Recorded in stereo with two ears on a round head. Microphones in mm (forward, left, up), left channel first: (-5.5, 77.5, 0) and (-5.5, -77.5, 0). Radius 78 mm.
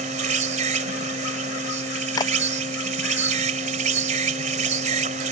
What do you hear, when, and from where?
0.0 s an insect: 45° right (ahead or behind)
2.2 s a clap: 20° left (ahead or behind)